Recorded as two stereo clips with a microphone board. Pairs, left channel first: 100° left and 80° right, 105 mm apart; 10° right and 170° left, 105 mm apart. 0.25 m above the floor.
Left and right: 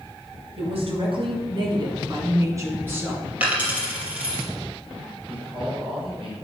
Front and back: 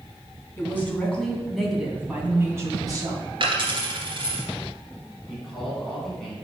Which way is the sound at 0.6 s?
75° right.